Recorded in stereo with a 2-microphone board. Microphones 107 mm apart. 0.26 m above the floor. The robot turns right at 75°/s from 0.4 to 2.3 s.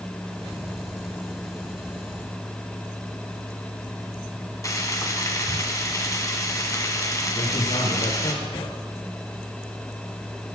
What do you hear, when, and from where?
4.6 s frying: 30° left (ahead or behind), 2 m
7.3 s a man speaking: 70° left (ahead or behind), 7 m